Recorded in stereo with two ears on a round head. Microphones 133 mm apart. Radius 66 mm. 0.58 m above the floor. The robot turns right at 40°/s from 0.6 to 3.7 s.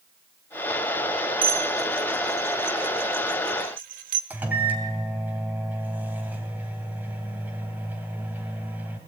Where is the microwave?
10° right (ahead or behind), 2.5 m.